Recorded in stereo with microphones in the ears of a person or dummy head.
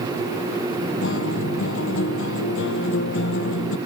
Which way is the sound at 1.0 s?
85° left.